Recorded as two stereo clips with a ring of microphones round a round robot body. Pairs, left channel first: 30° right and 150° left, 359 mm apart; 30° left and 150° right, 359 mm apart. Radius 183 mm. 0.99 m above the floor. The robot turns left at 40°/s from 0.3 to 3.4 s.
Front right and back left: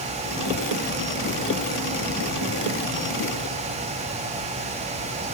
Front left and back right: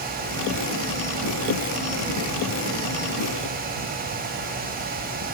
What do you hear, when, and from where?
Only background noise.